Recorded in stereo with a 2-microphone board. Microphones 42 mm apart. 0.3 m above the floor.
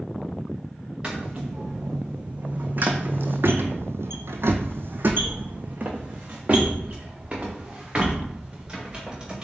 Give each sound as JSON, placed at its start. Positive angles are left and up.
{"t": 1.0, "sound": "footsteps", "side_deg": -20, "distance_m": 1.8}